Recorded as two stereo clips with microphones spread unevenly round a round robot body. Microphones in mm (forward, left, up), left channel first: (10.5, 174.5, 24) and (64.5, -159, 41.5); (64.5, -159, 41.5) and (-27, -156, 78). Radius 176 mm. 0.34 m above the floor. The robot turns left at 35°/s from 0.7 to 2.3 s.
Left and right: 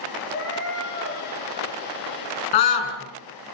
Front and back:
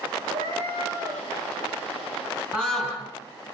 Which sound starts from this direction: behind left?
A cat meowing, at 0.3 s.